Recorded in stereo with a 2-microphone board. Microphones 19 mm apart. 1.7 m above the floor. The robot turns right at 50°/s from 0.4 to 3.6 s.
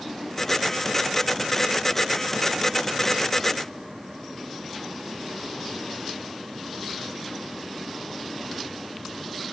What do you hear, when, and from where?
Only background noise.